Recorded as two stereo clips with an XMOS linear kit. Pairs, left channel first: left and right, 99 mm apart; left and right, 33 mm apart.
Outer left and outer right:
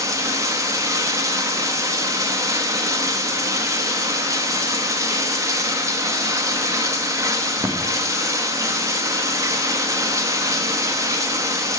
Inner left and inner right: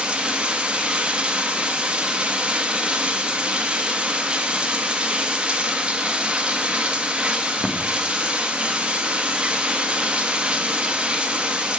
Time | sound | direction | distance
0.0 | running water | 35° right (ahead or behind) | 1.3 m